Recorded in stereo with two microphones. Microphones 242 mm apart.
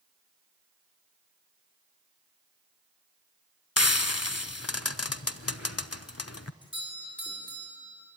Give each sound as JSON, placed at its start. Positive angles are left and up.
{"t": 3.8, "sound": "frying", "side_deg": 80, "distance_m": 0.6}
{"t": 6.6, "sound": "a doorbell", "side_deg": 20, "distance_m": 6.0}